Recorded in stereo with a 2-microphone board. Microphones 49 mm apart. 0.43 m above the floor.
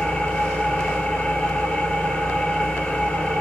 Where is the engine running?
20° left (ahead or behind), 2.0 m.